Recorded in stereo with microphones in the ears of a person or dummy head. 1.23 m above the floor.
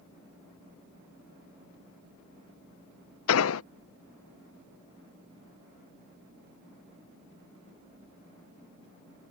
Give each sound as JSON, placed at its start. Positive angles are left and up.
{"t": 3.3, "sound": "an explosion", "side_deg": 80}